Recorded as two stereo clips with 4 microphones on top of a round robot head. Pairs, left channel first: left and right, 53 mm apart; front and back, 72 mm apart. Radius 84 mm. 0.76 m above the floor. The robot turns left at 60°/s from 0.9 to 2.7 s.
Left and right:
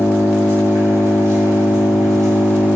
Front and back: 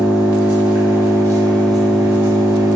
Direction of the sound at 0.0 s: 35° right.